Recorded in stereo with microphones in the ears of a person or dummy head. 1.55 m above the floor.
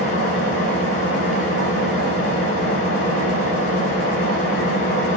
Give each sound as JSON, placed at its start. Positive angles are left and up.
{"t": 0.0, "sound": "an engine running", "side_deg": 70, "distance_m": 5.0}